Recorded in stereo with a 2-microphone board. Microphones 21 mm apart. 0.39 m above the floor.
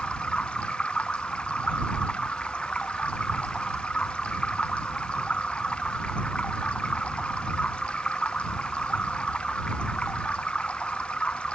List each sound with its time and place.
0.0 s running water: 85° left